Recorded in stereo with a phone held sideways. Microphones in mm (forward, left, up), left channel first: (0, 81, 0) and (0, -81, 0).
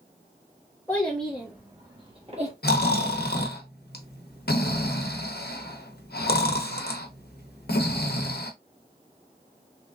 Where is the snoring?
80° left, 0.7 m.